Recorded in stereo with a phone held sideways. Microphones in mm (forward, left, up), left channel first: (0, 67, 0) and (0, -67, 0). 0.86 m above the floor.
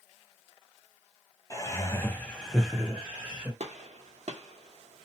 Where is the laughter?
25° left (ahead or behind), 0.7 m; by 3.5 s 10° right (ahead or behind), 1.0 m.